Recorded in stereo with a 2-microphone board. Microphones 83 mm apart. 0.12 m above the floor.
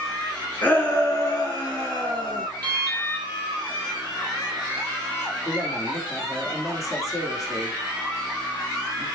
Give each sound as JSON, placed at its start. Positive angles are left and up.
{"t": 0.6, "sound": "a shout", "side_deg": 25, "distance_m": 1.7}
{"t": 2.6, "sound": "an alarm", "side_deg": 15, "distance_m": 5.0}
{"t": 5.5, "sound": "a woman speaking", "side_deg": 35, "distance_m": 3.0}